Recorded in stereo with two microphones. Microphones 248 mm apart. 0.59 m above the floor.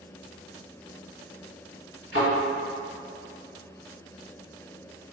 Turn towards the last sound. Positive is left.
turn(degrees=-50)  # may be behind; listen again after turning